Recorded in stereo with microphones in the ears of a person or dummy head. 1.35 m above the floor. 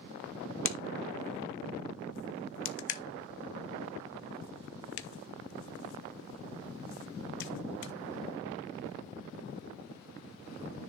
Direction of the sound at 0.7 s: 65° left (ahead or behind).